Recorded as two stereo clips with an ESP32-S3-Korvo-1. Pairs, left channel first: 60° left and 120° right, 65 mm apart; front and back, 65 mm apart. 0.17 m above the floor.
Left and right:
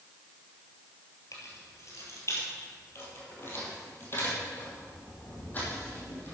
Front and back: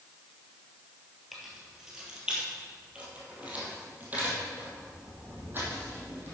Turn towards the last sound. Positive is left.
turn(degrees=125)